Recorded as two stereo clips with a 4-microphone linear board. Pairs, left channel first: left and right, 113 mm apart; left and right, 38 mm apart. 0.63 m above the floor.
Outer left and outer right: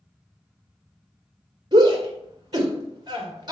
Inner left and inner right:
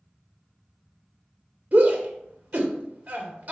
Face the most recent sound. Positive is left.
turn(degrees=-40)  # may be behind; listen again after turning